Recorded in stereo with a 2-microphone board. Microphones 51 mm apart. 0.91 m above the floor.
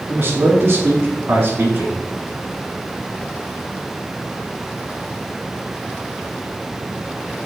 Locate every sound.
0.1 s a man speaking: 45° right (ahead or behind), 1.9 m